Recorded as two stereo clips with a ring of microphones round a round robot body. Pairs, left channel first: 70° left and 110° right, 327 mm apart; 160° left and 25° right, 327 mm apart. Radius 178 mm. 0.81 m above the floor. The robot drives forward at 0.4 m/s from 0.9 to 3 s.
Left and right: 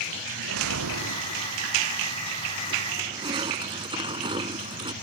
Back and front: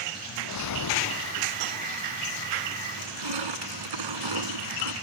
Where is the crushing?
35° right.